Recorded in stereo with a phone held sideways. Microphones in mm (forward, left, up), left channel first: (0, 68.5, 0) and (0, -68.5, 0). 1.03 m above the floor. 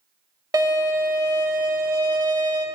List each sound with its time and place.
0.5 s a violin: 30° right (ahead or behind), 0.8 m